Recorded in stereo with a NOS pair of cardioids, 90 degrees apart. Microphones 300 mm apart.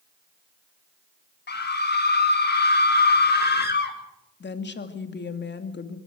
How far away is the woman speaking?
About 2.5 m.